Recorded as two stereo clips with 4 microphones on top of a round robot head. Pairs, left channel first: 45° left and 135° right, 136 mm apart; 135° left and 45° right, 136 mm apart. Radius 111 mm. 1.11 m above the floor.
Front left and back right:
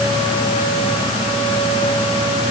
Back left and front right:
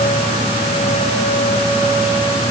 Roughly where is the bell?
I don't hear a bell.